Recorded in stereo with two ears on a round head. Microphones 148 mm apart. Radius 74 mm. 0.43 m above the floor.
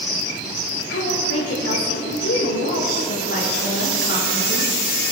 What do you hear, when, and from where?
0.9 s a woman speaking: 80° left, 6 m